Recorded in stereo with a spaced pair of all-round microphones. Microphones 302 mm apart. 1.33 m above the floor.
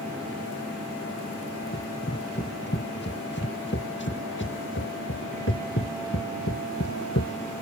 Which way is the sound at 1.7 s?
30° left (ahead or behind).